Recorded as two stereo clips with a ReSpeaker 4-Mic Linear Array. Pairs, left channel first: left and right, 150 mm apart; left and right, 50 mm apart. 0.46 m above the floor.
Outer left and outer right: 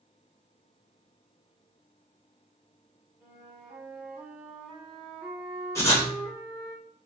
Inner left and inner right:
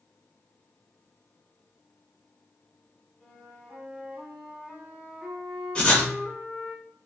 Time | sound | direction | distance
3.2 | a flute | 10° right (ahead or behind) | 1.1 m
5.8 | writing | 20° left (ahead or behind) | 0.8 m